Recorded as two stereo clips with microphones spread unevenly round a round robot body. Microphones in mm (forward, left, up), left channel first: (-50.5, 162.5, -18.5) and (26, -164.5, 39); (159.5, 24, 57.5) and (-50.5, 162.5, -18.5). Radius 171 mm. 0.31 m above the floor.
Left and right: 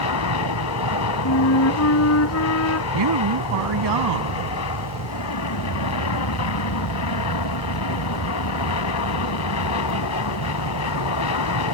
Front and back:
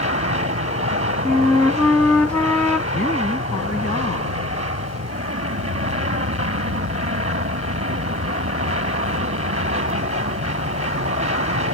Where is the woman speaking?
110° right.